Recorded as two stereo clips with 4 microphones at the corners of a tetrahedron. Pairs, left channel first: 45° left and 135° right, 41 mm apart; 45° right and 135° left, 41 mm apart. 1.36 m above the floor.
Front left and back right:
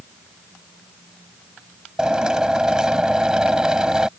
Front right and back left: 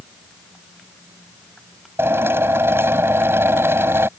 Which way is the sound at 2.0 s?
150° left.